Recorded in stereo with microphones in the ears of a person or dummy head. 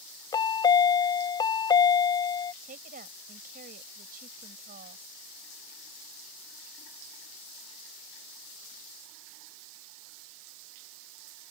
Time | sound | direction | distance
0.3 | a chime | 20° left (ahead or behind) | ?
2.6 | a woman speaking | 45° right (ahead or behind) | ?